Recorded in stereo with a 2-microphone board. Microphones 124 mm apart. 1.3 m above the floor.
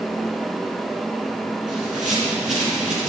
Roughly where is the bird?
Right.